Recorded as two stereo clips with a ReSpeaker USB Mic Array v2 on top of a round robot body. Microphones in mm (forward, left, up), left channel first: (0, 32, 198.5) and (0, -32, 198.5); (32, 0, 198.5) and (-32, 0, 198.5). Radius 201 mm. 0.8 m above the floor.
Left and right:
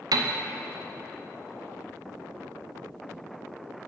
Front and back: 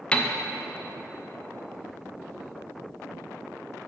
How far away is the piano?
About 0.5 m.